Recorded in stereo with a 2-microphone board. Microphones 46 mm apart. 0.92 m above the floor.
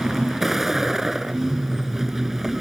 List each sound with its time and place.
0.0 s a vehicle: 10° right (ahead or behind)